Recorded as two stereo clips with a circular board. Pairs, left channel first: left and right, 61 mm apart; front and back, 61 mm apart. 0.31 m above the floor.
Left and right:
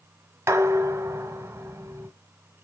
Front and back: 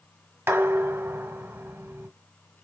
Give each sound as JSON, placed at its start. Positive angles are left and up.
{"t": 0.5, "sound": "dishes clattering", "azimuth_deg": -135, "distance_m": 1.2}